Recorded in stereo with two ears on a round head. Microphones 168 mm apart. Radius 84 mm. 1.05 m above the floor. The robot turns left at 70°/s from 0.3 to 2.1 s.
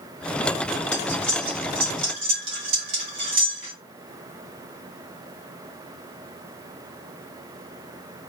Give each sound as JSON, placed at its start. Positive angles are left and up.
{"t": 0.9, "sound": "cutlery clinking", "side_deg": 35, "distance_m": 2.5}